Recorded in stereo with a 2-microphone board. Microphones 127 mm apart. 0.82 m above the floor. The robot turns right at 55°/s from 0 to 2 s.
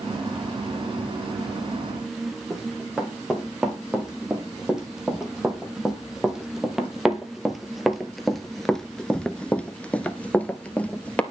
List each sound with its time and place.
2.5 s running footsteps: 5° right (ahead or behind), 4 m; by 11.2 s 10° left (ahead or behind), 1.3 m